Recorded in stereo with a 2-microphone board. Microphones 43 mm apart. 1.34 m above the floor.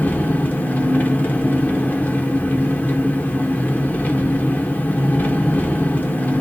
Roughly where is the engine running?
Left.